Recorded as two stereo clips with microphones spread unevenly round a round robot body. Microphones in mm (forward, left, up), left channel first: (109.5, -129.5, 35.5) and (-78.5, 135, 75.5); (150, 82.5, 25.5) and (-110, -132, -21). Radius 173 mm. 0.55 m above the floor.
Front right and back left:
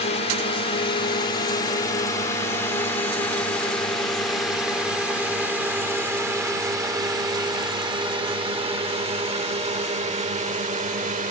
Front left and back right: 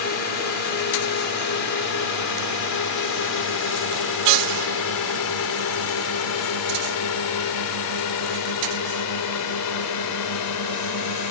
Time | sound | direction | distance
0.0 | a drone | straight ahead | ?